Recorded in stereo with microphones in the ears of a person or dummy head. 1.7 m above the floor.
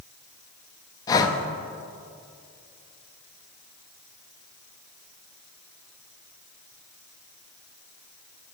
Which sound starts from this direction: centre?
Breathing, at 1.1 s.